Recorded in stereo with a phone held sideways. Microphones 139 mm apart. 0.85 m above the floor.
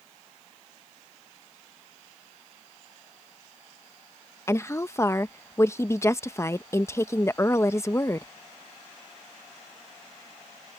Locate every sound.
4.5 s a woman speaking: 20° left (ahead or behind)